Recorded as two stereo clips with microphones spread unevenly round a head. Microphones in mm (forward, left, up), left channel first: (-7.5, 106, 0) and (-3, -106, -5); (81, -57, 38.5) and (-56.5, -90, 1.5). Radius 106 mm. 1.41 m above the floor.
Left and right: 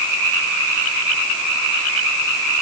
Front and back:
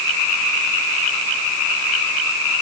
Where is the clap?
I don't hear a clap.